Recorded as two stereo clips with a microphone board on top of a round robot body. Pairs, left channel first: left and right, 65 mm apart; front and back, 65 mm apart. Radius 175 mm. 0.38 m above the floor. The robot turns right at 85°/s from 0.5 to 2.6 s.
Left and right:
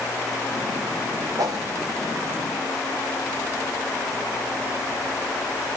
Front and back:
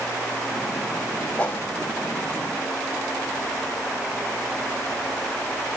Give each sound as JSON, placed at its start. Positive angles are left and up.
{"t": 1.4, "sound": "a whoosh", "azimuth_deg": -70, "distance_m": 3.5}